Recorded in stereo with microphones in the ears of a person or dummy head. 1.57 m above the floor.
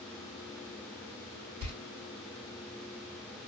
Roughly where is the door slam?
Right.